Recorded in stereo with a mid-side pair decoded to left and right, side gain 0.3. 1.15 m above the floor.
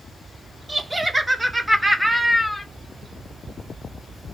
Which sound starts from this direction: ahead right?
Laughter, at 0.7 s.